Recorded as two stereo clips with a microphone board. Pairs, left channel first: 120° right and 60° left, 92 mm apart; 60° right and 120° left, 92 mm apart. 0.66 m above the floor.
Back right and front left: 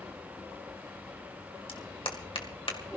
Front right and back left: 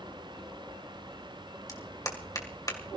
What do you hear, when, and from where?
1.7 s a clap: 105° right, 2.5 m